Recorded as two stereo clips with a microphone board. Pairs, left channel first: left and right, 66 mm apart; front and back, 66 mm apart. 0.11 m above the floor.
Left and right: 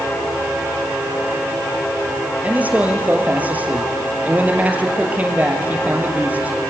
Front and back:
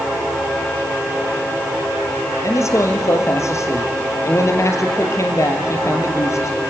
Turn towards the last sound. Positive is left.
turn(degrees=-30)